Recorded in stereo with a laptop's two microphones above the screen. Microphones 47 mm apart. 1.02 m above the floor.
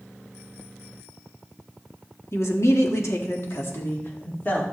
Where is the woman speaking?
70° left (ahead or behind), 1.9 m; by 4.6 s 40° left (ahead or behind), 2.5 m.